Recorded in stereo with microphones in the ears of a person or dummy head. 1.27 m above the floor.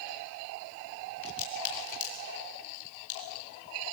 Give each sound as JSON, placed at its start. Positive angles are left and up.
{"t": 1.2, "sound": "a crack", "side_deg": 70, "distance_m": 7.0}